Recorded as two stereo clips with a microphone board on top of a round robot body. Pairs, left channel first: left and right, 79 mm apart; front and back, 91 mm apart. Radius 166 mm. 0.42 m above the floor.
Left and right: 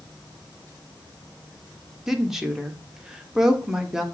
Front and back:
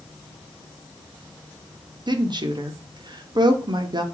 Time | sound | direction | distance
2.1 | a woman speaking | 170° right | 1.4 m